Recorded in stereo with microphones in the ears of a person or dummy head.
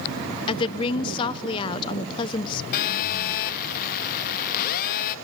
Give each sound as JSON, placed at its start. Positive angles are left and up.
{"t": 0.5, "sound": "a woman speaking", "side_deg": 20, "distance_m": 0.9}
{"t": 2.7, "sound": "a phone buzzing", "side_deg": 45, "distance_m": 1.2}